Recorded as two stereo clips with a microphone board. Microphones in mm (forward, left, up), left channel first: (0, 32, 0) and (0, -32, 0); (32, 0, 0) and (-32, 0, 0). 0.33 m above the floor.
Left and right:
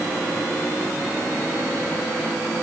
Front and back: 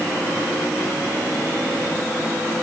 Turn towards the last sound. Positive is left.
No sound to turn to.